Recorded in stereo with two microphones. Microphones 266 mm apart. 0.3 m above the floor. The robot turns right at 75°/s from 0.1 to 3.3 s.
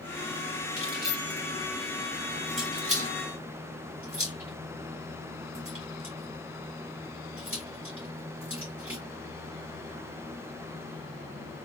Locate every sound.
0.8 s keys jangling: 40° left (ahead or behind), 2 m; by 9.0 s 50° right (ahead or behind), 2 m